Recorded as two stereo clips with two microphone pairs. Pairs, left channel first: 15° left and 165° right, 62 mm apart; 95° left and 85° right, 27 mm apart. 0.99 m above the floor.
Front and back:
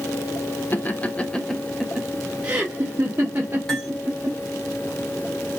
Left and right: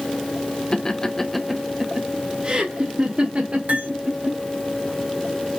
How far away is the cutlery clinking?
About 2.5 m.